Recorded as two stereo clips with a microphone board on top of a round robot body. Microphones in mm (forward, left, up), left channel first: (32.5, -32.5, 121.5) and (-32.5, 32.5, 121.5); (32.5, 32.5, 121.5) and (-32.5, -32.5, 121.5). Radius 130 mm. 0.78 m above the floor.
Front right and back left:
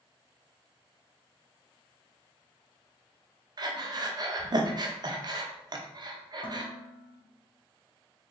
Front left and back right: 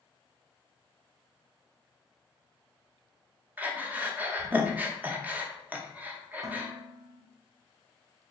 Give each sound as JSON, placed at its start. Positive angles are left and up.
{"t": 3.6, "sound": "breathing", "azimuth_deg": 155, "distance_m": 0.8}
{"t": 6.4, "sound": "dishes clattering", "azimuth_deg": -80, "distance_m": 1.1}